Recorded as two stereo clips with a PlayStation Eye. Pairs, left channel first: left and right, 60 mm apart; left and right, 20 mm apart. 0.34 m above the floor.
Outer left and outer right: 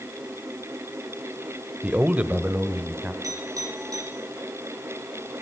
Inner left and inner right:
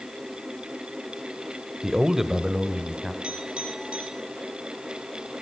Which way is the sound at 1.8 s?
25° right (ahead or behind).